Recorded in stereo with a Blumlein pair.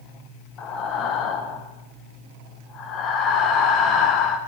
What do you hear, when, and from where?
0.6 s breathing: 30° left, 1.2 m